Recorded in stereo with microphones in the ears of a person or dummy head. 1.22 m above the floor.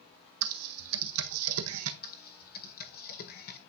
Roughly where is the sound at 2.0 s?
Left.